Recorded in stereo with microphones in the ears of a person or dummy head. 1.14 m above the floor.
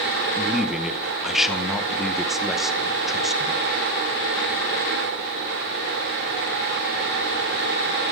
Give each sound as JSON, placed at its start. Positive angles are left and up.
{"t": 0.4, "sound": "a man speaking", "side_deg": 0, "distance_m": 0.8}